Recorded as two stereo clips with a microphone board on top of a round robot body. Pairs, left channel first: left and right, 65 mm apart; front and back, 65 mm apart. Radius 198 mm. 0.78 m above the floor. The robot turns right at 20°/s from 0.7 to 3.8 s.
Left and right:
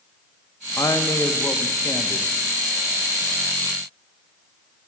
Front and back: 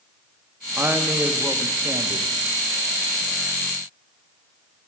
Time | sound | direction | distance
0.8 | a woman speaking | 120° left | 0.7 m